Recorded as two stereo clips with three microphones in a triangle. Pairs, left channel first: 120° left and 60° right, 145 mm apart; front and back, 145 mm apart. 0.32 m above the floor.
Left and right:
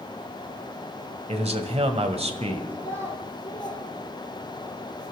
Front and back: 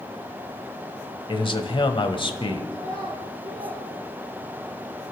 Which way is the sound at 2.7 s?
165° right.